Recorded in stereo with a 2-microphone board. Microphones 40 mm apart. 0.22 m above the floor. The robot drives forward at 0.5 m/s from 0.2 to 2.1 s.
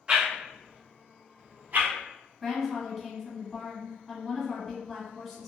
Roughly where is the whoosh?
Right.